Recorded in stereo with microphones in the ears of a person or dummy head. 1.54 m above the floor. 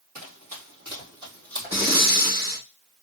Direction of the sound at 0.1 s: 35° right (ahead or behind).